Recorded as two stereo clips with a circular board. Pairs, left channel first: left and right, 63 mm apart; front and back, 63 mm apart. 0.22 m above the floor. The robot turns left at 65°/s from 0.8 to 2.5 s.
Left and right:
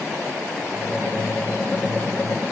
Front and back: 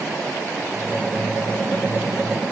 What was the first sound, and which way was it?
Only background noise.